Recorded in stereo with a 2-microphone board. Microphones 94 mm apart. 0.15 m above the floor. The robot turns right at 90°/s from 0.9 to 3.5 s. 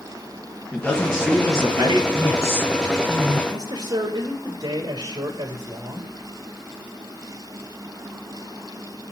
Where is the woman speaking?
115° left, 2.5 m; by 3.4 s 130° right, 2.5 m.